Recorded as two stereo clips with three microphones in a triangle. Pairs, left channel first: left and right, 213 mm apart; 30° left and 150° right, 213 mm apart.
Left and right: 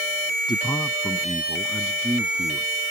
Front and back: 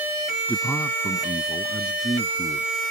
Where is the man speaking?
90° left; by 2.7 s 25° right.